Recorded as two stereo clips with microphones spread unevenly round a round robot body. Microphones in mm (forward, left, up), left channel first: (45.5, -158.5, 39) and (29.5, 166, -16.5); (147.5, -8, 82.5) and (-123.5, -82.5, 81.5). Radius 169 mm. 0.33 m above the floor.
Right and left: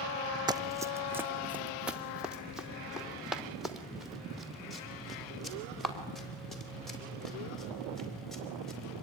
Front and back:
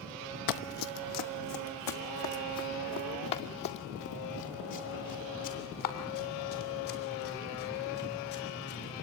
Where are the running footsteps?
10° left, 0.8 m; by 9.0 s straight ahead, 6.5 m.